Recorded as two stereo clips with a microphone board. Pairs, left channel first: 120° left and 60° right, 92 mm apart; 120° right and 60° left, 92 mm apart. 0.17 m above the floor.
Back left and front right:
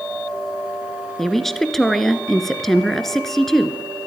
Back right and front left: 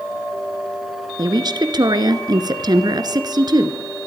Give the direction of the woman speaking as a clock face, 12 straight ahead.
11 o'clock.